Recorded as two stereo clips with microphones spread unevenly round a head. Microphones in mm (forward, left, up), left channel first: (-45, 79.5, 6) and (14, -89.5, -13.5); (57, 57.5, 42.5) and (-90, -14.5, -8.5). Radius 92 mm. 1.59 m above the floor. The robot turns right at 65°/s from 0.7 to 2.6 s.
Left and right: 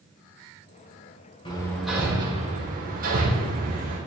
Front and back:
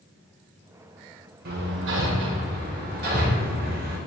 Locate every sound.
1.4 s hammering: 175° left, 4.5 m; by 4.0 s 115° right, 4.5 m